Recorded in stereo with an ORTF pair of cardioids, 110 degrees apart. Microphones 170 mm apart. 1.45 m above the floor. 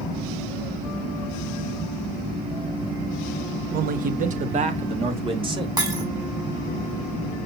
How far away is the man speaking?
About 1.6 m.